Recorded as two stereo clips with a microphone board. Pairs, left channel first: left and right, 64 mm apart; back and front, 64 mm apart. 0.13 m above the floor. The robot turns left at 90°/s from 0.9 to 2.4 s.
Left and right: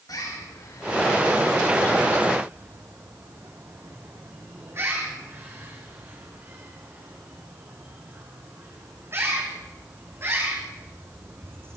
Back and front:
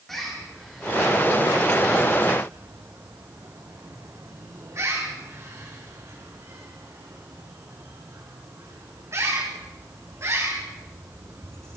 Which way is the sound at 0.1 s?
95° left.